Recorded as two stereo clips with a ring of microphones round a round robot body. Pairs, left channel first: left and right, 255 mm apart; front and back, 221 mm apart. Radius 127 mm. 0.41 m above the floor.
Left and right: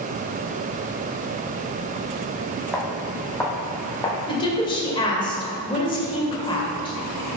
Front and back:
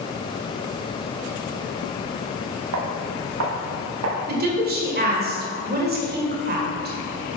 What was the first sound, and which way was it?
Footsteps, straight behind.